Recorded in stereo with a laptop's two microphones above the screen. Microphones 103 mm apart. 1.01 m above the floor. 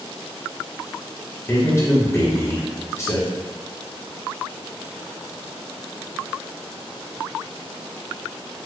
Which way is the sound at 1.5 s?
30° left (ahead or behind).